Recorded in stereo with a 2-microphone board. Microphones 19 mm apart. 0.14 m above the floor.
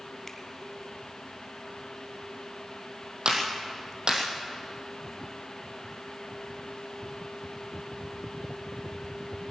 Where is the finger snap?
15° left (ahead or behind), 1.4 m.